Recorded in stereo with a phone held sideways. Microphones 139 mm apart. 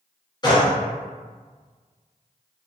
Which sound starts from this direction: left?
A gunshot, at 0.4 s.